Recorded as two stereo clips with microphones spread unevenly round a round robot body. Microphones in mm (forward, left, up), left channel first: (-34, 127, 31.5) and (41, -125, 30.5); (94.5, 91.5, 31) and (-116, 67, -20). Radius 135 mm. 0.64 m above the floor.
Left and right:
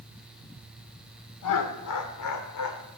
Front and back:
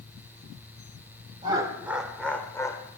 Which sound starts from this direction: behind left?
Laughter, at 1.4 s.